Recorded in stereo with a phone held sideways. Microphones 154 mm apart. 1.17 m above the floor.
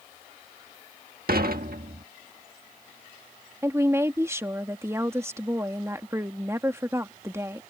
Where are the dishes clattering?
75° right (ahead or behind).